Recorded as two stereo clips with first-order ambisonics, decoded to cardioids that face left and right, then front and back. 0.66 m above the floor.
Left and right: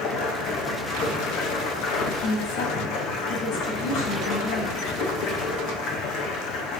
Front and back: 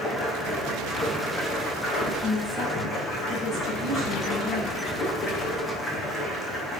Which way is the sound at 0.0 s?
70° left.